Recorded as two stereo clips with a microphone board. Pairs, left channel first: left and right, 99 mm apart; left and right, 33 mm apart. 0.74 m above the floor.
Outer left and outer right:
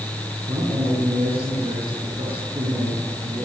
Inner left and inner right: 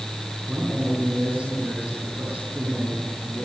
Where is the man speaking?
75° right (ahead or behind), 9.5 m.